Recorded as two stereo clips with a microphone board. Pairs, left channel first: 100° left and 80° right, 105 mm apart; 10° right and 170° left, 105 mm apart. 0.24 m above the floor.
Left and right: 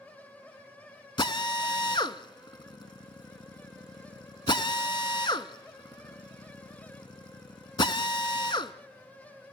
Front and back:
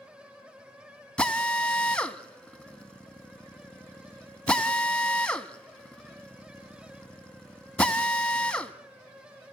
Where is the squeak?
No squeak in this recording.